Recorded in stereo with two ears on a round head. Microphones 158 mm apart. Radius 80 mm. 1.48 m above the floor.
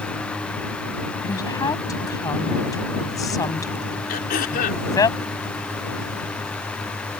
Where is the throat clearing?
55° left (ahead or behind).